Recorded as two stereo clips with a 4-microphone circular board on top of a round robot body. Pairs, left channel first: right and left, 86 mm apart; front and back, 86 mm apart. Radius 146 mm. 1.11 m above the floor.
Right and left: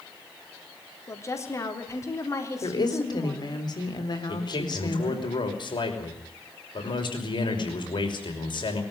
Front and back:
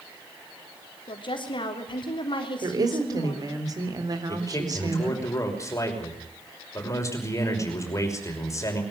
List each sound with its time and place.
1.1 s a woman speaking: 30° right, 3.5 m
2.6 s a woman speaking: 130° right, 4 m
4.3 s a man speaking: 60° right, 6 m